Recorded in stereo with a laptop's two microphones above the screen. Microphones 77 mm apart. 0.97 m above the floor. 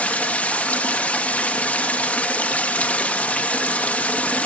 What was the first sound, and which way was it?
Running water, 15° left (ahead or behind).